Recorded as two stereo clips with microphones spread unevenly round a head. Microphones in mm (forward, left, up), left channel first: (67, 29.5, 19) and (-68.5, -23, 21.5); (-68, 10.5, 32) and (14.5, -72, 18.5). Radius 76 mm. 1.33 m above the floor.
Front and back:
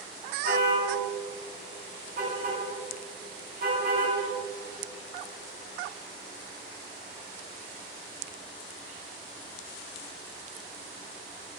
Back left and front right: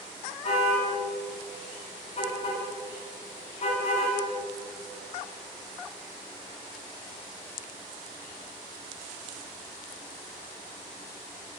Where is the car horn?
165° left, 6 m.